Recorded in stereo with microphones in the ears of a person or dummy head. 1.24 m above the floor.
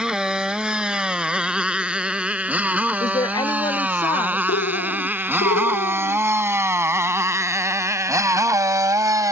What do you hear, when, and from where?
0.0 s a motorcycle: 5° right (ahead or behind); by 9.3 s 20° right (ahead or behind)
3.0 s a woman speaking: 25° left (ahead or behind)
4.5 s a bird: 60° left (ahead or behind)